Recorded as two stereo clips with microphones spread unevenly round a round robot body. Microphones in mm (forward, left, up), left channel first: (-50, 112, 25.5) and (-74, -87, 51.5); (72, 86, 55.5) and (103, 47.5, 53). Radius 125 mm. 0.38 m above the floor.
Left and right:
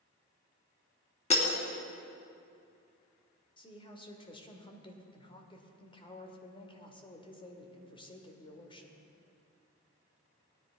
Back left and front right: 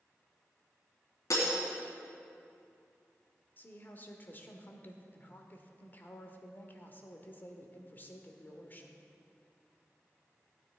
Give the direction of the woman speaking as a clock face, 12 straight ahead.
8 o'clock.